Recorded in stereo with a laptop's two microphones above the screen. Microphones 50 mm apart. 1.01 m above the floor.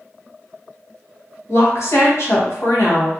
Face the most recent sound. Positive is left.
turn(degrees=65)  # may be behind; listen again after turning